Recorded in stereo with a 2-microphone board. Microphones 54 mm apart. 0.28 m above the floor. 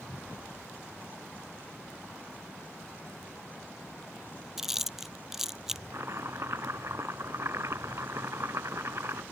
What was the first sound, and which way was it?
Chewing, 5° right (ahead or behind).